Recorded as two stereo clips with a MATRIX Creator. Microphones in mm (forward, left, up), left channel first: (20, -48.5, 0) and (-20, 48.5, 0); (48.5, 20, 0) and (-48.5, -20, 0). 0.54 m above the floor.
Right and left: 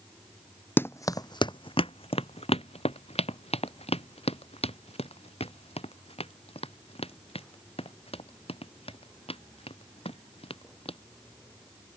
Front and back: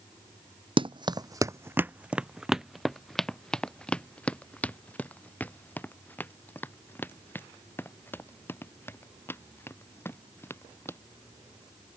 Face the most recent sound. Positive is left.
turn(degrees=-45)